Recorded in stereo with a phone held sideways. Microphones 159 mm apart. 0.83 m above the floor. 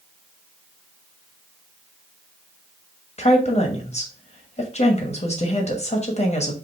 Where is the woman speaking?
45° left (ahead or behind), 1.1 m.